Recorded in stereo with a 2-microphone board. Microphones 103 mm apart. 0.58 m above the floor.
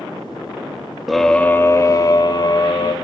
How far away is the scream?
About 0.7 m.